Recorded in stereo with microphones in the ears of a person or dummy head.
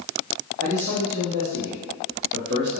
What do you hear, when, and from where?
0.6 s a man speaking: 50° right (ahead or behind), 0.6 m